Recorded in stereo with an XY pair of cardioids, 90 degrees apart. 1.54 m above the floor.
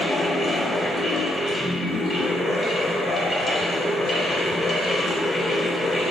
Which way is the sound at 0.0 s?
50° left.